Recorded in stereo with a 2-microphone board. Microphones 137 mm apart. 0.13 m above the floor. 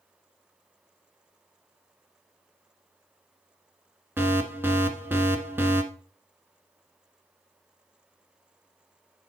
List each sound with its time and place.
4.2 s an alarm: 15° right (ahead or behind), 1.4 m